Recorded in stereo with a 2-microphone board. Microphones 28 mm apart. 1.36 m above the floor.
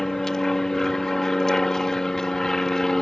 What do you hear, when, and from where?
0.0 s an aircraft: 20° left (ahead or behind)